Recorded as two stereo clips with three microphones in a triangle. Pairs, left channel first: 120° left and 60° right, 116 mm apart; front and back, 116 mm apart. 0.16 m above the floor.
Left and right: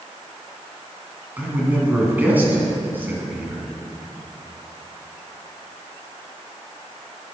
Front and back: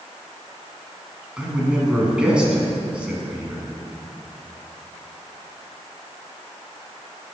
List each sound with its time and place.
1.4 s a man speaking: 110° right, 1.7 m